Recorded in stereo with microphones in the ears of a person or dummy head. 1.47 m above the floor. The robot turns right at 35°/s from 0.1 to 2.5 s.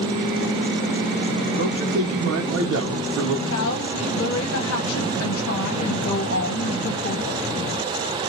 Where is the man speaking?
125° right, 0.9 m; by 3.4 s 90° right, 0.9 m.